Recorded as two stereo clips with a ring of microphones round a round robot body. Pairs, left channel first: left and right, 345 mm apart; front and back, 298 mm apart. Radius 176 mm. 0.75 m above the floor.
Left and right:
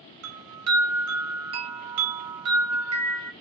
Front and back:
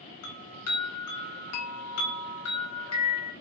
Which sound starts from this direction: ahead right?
A chime, at 0.2 s.